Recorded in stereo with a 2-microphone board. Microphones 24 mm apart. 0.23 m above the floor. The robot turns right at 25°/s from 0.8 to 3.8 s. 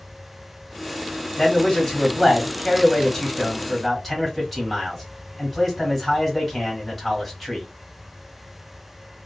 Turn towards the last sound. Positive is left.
turn(degrees=10)  # may be behind; listen again after turning